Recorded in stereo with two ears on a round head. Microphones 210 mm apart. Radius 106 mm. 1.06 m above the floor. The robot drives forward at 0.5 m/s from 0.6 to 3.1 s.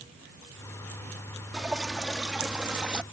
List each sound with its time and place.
1.5 s dripping: centre (ahead or behind); by 3.0 s 5° right (ahead or behind)